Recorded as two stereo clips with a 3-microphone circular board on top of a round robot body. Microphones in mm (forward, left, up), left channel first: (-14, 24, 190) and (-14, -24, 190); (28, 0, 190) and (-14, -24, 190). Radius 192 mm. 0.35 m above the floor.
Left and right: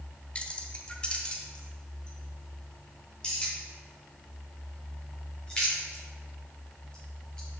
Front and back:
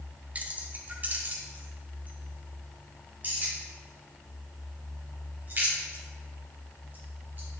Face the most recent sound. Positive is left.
turn(degrees=160)